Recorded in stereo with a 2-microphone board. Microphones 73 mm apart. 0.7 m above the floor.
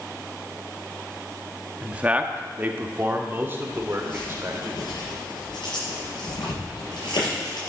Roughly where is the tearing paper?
Left.